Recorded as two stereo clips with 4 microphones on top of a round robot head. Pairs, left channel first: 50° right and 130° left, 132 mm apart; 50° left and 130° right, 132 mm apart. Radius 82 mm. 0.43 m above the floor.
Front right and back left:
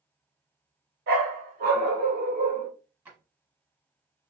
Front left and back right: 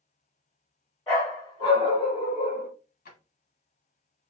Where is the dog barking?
120° left, 1.9 m; by 2.7 s 90° left, 1.8 m.